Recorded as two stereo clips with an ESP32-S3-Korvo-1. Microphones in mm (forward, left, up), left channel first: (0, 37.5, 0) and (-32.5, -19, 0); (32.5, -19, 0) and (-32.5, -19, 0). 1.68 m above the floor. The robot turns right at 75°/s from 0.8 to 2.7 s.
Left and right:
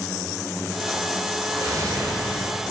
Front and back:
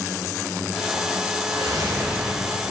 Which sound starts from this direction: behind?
A whoosh, at 1.5 s.